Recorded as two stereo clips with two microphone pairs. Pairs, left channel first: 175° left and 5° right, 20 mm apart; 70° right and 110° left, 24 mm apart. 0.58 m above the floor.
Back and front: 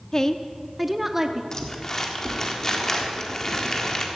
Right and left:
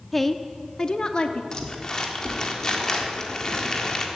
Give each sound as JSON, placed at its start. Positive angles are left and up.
{"t": 0.1, "sound": "a woman speaking", "azimuth_deg": -160, "distance_m": 0.7}
{"t": 1.5, "sound": "crumpling", "azimuth_deg": -130, "distance_m": 1.5}